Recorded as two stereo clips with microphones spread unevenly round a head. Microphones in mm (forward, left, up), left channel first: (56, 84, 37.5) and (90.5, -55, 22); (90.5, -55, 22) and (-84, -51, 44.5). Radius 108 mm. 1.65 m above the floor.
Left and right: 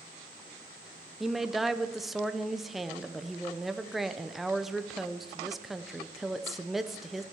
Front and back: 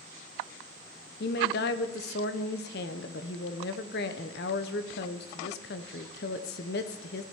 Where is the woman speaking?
20° left, 0.6 m.